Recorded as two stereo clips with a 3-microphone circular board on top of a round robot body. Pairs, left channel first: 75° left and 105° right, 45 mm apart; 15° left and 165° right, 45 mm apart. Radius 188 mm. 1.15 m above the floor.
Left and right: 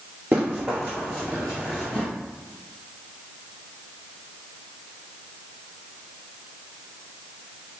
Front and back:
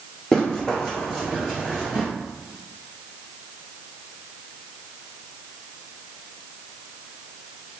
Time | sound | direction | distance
0.3 | running footsteps | 65° right | 1.4 m